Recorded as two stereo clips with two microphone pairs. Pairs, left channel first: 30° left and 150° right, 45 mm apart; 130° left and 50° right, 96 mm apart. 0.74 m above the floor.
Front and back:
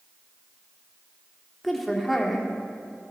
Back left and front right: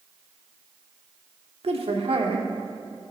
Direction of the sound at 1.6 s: 60° right.